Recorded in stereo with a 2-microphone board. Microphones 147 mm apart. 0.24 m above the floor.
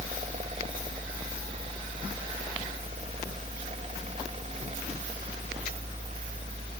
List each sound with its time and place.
Only background noise.